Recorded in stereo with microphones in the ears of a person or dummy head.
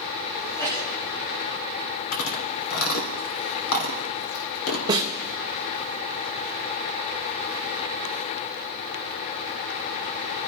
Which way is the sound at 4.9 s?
20° right (ahead or behind).